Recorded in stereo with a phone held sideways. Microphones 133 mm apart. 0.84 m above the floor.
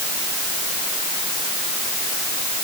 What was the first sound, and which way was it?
Only background noise.